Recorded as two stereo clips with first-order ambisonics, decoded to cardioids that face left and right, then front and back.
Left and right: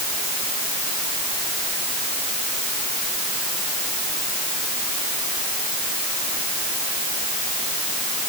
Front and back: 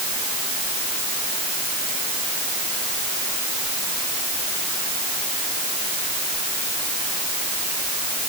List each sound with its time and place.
Only background noise.